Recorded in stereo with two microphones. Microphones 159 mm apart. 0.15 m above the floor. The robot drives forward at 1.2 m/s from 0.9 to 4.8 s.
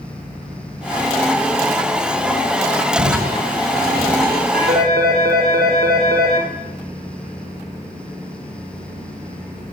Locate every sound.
3.0 s crushing: 60° right (ahead or behind), 4.5 m; by 4.4 s 75° right (ahead or behind), 4 m
4.5 s a phone ringing: 80° right, 5 m